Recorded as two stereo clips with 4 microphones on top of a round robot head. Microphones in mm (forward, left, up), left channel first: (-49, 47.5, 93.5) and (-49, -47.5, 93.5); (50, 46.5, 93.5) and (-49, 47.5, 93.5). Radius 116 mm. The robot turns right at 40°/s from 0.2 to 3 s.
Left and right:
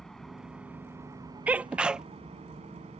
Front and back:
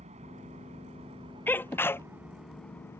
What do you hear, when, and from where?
0.0 s an engine running: 175° left; by 3.0 s 70° right
1.5 s a sneeze: 40° right; by 2.1 s 15° right